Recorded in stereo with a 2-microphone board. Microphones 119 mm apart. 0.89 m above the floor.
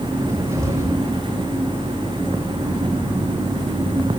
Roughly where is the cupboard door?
Right.